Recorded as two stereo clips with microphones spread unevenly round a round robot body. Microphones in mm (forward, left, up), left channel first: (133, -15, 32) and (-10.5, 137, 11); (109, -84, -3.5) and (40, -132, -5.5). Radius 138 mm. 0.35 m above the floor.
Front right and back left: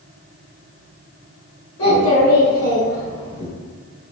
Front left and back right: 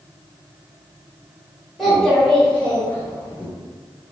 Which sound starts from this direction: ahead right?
A child speaking, at 1.8 s.